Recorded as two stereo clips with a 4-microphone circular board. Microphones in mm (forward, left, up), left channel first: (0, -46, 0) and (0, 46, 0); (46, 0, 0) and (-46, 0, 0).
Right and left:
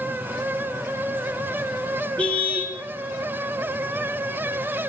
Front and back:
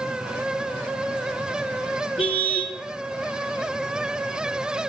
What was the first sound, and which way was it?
A car horn, 10° right.